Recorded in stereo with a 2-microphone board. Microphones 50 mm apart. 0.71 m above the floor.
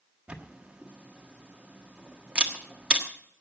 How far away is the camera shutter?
About 1.4 m.